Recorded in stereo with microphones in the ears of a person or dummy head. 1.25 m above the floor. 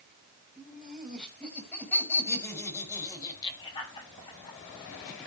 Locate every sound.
0.6 s laughter: centre (ahead or behind), 6.5 m; by 4.6 s 30° left (ahead or behind), 6 m